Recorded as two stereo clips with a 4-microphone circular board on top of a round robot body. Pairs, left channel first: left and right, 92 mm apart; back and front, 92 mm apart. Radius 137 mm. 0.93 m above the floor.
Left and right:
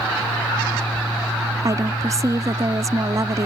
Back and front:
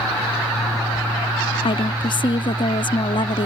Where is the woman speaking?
145° right.